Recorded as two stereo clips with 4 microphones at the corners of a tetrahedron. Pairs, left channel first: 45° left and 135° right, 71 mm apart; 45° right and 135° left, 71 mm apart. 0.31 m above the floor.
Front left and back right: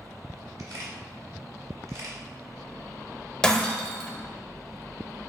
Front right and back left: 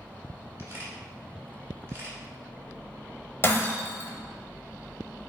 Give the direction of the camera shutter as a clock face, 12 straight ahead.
6 o'clock.